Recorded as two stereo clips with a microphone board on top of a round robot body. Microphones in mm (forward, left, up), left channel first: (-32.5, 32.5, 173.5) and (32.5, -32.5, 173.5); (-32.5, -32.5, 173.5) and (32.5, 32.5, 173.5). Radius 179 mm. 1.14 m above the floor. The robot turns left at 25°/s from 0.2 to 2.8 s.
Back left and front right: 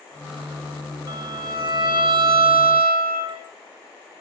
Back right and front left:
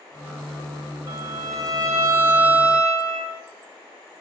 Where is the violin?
10° left, 1.5 m; by 3.4 s 35° right, 1.5 m.